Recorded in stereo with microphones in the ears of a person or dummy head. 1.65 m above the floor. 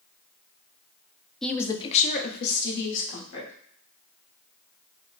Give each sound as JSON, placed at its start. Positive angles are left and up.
{"t": 1.4, "sound": "a woman speaking", "side_deg": 0, "distance_m": 0.5}